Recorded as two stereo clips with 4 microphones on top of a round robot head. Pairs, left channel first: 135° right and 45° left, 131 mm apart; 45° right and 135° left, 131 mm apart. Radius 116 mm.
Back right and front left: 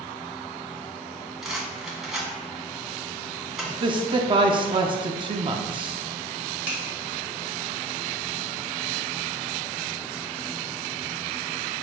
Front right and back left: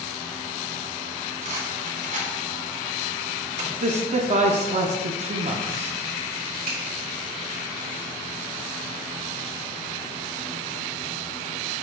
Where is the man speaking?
100° left, 0.6 m.